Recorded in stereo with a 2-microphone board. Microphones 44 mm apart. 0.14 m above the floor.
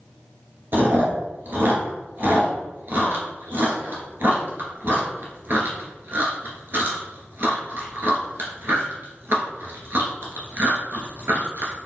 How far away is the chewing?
About 1.0 m.